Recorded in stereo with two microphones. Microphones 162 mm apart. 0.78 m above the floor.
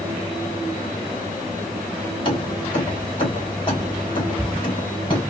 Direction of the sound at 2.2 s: 30° left (ahead or behind).